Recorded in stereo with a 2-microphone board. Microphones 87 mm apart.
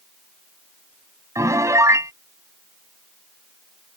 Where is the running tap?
I don't hear a running tap.